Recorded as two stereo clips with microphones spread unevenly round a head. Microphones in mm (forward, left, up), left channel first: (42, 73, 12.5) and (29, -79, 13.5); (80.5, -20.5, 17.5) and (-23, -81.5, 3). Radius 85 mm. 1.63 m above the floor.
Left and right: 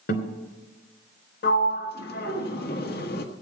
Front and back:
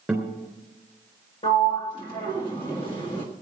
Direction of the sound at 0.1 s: 115° left.